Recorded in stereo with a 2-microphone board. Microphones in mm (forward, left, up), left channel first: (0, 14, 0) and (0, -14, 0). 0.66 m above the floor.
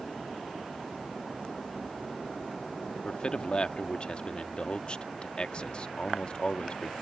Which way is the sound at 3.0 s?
35° left (ahead or behind).